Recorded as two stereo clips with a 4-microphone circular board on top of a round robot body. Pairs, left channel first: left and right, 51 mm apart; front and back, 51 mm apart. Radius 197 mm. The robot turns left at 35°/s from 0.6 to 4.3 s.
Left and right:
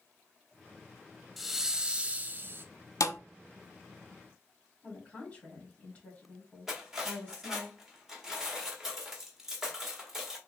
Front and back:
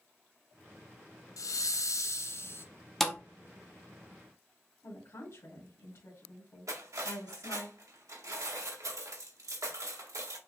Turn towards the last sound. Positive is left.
turn(degrees=-170)